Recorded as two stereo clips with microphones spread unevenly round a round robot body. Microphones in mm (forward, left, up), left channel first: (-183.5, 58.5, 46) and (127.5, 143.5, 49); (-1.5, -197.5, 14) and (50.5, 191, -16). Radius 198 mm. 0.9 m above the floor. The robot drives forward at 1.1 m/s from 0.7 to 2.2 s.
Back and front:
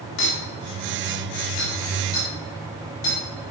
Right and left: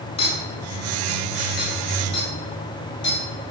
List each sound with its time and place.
0.2 s a clink: 175° right, 3 m